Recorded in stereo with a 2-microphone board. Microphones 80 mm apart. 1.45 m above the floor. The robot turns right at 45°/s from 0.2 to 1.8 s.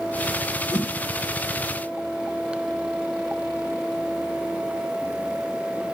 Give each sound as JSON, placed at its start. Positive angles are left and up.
{"t": 0.7, "sound": "a whoosh", "side_deg": 65, "distance_m": 2.0}